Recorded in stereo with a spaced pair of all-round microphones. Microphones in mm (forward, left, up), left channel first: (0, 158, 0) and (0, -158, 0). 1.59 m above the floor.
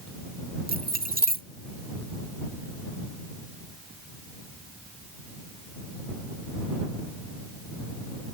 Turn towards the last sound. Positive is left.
turn(degrees=-30)  # may be behind; listen again after turning